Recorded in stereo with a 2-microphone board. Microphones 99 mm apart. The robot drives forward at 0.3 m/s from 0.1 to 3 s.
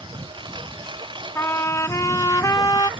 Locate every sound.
0.0 s a lawn mower: 50° right (ahead or behind)
1.4 s a trumpet: 25° left (ahead or behind); by 2.9 s 40° left (ahead or behind)